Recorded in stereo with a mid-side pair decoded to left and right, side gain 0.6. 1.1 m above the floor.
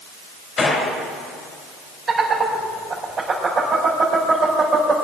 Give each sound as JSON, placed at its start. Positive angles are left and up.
{"t": 0.6, "sound": "a gunshot", "azimuth_deg": 30, "distance_m": 3.5}
{"t": 2.1, "sound": "laughter", "azimuth_deg": -35, "distance_m": 4.5}